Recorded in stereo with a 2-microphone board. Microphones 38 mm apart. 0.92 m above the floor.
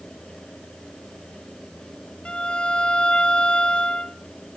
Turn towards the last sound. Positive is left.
turn(degrees=30)  # may be behind; listen again after turning